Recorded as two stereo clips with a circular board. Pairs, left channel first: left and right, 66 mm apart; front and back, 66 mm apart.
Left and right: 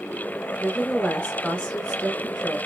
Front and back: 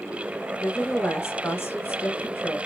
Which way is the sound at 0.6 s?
30° left.